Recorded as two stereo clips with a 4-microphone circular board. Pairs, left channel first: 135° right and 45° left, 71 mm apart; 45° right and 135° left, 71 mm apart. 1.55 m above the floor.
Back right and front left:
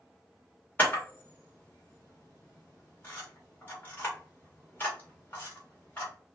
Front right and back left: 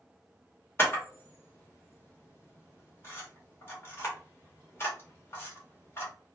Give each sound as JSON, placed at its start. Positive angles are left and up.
{"t": 0.8, "sound": "a camera shutter", "azimuth_deg": -85, "distance_m": 1.6}